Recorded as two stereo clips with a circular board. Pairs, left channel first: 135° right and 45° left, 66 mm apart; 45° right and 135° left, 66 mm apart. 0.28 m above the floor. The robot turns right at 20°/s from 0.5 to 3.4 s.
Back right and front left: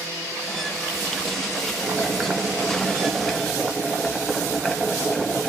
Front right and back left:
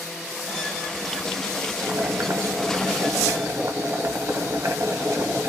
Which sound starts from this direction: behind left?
Boiling, at 1.8 s.